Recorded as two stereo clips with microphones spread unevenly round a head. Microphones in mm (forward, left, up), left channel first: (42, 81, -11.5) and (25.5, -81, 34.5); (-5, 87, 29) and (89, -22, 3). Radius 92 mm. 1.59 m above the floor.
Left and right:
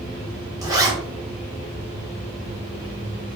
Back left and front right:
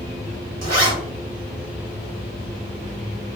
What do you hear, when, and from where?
0.6 s a zipper: 25° right, 1.4 m